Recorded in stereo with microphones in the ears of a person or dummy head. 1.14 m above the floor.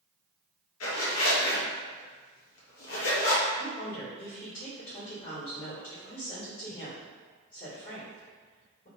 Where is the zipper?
75° left (ahead or behind), 0.8 m.